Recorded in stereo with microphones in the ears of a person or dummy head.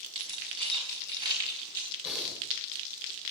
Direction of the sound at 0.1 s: 30° right (ahead or behind).